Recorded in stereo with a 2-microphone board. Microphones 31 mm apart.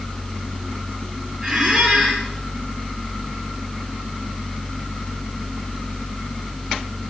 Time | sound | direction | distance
1.4 | a squeak | 15° right (ahead or behind) | 6 m